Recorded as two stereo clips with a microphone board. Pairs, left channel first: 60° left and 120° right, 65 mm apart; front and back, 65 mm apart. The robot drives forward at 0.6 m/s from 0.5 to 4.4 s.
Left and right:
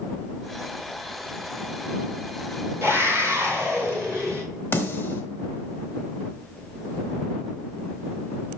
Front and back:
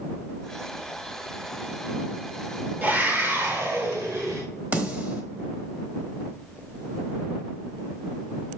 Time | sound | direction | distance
2.8 | a scream | 135° right | 1.9 m
4.7 | a snare drum | 120° left | 1.1 m